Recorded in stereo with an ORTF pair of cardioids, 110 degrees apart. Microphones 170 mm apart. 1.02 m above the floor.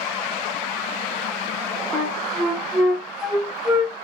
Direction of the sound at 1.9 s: Straight ahead.